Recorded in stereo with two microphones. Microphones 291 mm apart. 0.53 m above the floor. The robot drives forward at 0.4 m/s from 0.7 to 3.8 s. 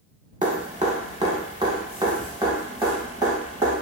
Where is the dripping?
25° right (ahead or behind), 1.0 m; by 3.8 s 10° right (ahead or behind), 2 m.